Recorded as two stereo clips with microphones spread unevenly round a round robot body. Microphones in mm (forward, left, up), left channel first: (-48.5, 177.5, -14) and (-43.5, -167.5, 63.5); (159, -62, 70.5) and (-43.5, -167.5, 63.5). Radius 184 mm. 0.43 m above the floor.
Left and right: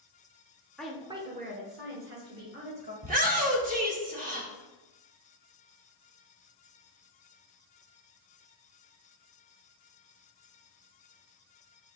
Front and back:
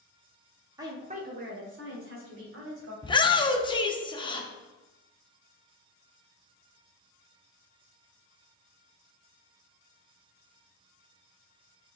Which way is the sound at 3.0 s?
20° right.